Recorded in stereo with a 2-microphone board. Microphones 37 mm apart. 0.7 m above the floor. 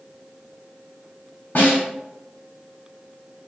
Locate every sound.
1.6 s a snare drum: 70° left (ahead or behind), 1.5 m